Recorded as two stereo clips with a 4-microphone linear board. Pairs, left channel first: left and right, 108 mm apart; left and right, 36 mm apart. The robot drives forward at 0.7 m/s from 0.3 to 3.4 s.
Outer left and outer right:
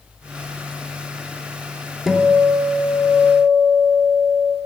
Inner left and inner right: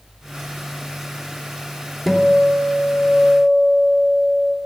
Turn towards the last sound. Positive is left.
turn(degrees=-5)  # may be behind; listen again after turning